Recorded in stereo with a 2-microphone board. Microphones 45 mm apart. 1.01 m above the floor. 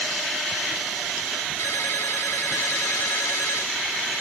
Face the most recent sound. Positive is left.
turn(degrees=85)